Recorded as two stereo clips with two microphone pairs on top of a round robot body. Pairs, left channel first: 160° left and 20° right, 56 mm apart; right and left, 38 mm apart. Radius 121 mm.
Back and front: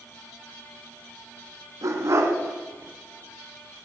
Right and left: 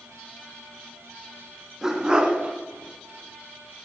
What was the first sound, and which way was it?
A dog barking, 10° left.